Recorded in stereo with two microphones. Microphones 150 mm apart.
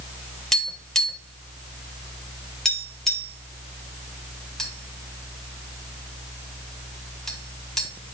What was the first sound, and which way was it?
Tapping, 5° left (ahead or behind).